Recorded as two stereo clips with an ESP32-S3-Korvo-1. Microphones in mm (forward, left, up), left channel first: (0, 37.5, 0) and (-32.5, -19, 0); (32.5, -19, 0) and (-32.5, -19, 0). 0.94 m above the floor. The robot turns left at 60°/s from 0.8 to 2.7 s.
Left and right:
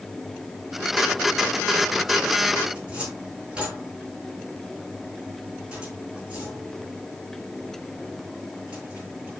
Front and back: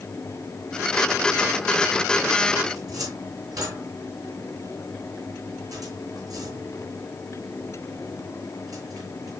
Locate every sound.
2.8 s a cupboard door: 165° left, 7.5 m